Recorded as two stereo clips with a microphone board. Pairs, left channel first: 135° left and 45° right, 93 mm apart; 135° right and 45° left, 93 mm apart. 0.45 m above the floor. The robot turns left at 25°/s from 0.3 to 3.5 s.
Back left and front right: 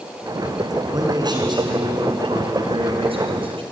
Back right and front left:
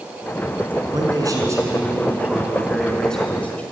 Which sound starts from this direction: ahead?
A man speaking, at 0.9 s.